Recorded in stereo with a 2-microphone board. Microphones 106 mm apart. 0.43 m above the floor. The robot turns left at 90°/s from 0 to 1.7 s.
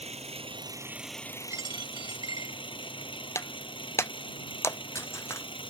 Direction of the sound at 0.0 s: 80° right.